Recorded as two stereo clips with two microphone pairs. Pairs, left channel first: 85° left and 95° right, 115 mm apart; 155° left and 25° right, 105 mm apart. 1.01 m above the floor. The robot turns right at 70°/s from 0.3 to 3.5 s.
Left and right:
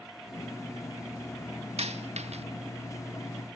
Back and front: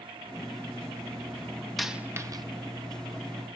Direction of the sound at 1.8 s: 115° right.